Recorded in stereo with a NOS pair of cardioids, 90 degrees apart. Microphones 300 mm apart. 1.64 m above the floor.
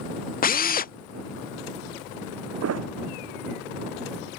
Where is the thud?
55° right.